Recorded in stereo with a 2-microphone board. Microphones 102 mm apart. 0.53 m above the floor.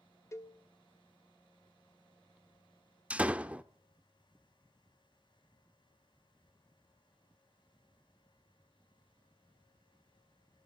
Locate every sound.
0.3 s a cowbell: 25° left (ahead or behind), 0.9 m
3.1 s a door slam: 10° right (ahead or behind), 0.7 m